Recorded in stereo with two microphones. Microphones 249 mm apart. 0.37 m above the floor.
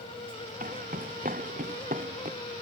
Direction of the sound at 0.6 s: 35° right (ahead or behind).